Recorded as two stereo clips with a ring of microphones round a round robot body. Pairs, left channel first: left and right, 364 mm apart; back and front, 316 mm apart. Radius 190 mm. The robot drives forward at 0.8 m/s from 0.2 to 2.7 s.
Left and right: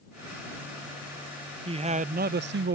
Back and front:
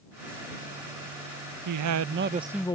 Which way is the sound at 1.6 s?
15° right.